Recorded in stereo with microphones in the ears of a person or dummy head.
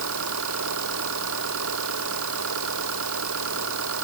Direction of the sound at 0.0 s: 70° right (ahead or behind).